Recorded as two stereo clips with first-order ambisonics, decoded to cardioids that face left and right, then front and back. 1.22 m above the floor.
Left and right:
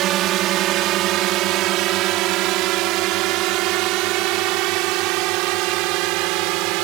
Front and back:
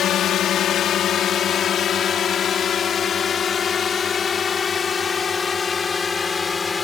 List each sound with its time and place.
0.0 s a drone: 50° right; by 6.8 s 75° right